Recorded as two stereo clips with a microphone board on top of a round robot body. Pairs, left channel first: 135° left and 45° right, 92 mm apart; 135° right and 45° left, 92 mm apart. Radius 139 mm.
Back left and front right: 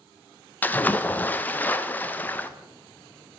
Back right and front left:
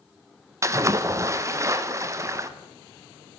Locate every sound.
0.6 s a splash: 75° left, 0.8 m